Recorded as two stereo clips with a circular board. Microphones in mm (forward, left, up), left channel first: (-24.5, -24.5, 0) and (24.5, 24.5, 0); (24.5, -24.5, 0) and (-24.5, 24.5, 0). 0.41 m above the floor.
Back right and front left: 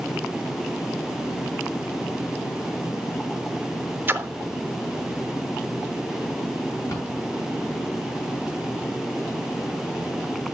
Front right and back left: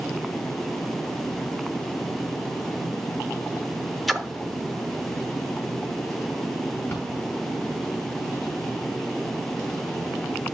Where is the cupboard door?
110° right, 5 m.